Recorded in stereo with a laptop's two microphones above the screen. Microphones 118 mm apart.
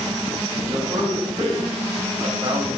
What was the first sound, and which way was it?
A man speaking, 30° right (ahead or behind).